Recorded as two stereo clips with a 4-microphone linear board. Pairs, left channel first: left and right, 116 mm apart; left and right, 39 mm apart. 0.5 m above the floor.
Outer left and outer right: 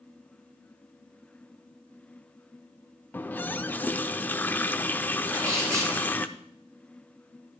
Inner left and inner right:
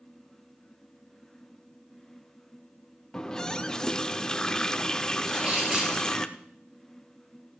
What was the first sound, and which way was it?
A running tap, 15° left (ahead or behind).